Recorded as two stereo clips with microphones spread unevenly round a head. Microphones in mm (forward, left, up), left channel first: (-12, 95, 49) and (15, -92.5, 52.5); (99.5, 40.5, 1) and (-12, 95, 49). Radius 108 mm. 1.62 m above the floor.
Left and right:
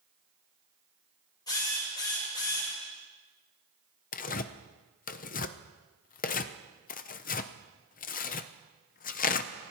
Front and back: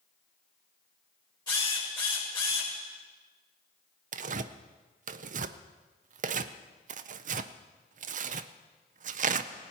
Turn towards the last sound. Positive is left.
turn(degrees=145)